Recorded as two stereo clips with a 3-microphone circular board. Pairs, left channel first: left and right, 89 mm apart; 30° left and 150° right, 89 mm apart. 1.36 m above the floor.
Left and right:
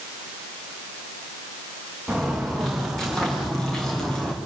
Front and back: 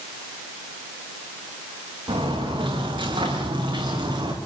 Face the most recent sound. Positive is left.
turn(degrees=170)